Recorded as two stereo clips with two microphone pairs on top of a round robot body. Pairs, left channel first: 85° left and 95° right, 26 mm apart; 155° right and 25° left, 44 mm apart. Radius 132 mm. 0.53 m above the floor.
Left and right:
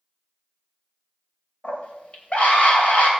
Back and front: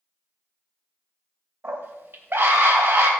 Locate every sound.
1.6 s a scream: 50° left, 3 m